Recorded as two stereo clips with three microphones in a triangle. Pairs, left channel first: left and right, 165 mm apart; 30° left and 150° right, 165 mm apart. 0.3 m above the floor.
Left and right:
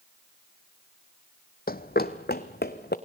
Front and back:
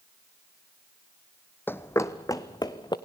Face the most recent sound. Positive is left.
turn(degrees=95)